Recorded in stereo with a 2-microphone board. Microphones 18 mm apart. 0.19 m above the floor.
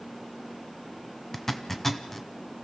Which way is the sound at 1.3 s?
15° left (ahead or behind).